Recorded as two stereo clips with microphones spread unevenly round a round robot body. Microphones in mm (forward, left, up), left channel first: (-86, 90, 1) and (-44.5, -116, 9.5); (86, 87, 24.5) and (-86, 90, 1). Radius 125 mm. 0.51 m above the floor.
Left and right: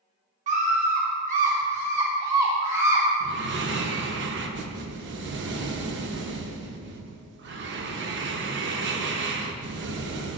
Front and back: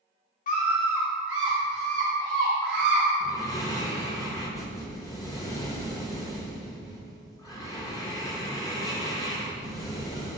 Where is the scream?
35° right, 1.0 m; by 3.0 s 155° right, 2.5 m.